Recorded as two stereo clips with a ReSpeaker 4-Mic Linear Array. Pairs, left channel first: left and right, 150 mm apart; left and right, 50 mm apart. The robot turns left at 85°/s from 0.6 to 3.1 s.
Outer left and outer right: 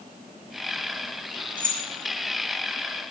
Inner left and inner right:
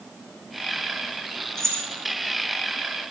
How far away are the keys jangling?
About 1.8 m.